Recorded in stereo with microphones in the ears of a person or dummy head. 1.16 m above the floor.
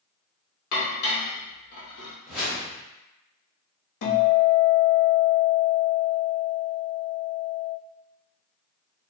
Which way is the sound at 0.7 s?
60° left (ahead or behind).